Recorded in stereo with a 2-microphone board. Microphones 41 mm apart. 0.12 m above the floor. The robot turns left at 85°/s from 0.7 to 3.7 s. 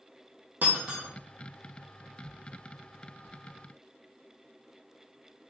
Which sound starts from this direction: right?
Breaking glass, at 0.6 s.